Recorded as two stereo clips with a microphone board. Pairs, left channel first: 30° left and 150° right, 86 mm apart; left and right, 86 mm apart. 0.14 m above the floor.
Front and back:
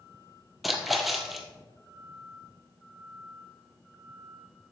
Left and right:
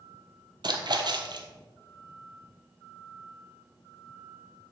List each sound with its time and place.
0.6 s a splash: 60° right, 1.1 m